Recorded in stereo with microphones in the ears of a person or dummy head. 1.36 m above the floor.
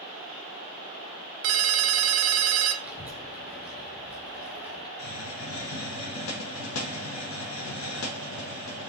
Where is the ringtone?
60° right (ahead or behind), 0.5 m.